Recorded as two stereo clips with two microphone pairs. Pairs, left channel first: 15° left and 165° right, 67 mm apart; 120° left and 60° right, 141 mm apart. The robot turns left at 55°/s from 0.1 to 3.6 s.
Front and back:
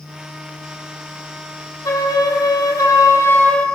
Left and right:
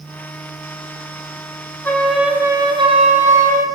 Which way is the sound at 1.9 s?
45° left.